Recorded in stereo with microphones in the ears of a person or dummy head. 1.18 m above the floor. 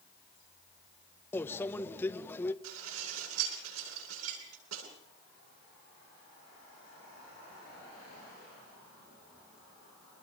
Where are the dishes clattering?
90° right, 9 m.